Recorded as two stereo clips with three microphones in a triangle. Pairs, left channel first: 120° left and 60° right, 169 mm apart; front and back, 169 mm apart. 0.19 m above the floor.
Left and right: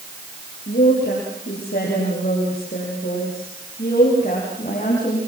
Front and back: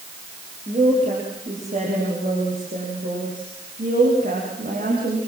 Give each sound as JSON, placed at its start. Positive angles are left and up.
{"t": 0.7, "sound": "a woman speaking", "azimuth_deg": 130, "distance_m": 8.0}